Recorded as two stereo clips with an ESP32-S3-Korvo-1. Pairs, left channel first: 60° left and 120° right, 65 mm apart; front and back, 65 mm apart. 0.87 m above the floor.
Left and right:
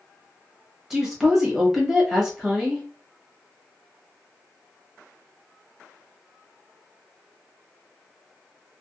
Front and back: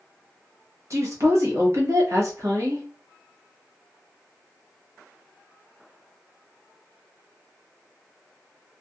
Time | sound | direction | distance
0.9 | a woman speaking | 160° left | 1.1 m